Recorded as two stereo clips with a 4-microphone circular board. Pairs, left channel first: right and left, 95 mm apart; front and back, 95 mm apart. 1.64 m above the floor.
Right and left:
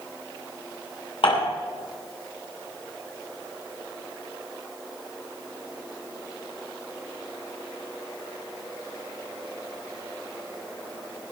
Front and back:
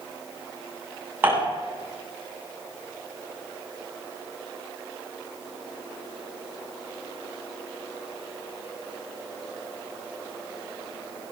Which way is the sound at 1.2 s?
110° right.